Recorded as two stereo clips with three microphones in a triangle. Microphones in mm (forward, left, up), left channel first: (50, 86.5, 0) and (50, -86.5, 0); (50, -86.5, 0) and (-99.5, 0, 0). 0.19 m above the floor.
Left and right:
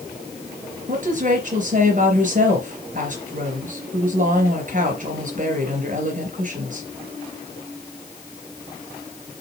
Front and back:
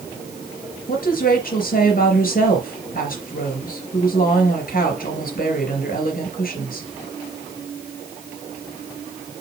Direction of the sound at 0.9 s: 55° right.